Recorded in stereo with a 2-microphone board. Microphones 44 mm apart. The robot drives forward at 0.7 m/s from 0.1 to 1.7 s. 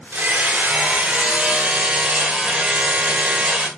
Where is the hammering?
55° right (ahead or behind), 1.1 m; by 3.7 s 30° right (ahead or behind), 1.8 m.